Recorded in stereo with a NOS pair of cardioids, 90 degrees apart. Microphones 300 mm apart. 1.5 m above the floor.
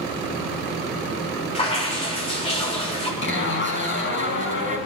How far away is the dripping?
About 3.5 m.